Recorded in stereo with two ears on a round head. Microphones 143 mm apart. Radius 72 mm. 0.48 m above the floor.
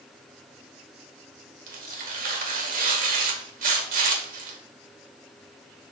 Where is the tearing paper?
55° right (ahead or behind), 1.3 m.